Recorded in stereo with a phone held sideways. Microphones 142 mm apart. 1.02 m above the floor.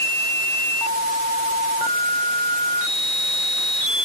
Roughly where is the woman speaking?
No woman speaking in this recording.